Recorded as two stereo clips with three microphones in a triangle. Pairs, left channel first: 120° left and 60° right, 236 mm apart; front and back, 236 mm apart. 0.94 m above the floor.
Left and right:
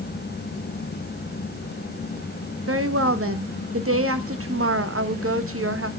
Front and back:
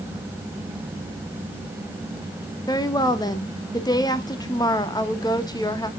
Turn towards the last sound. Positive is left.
turn(degrees=-75)